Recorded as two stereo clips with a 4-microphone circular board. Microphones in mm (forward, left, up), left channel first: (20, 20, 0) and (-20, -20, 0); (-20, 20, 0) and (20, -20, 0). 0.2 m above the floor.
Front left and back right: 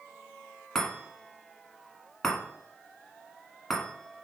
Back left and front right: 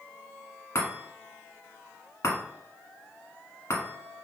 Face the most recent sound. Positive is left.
turn(degrees=125)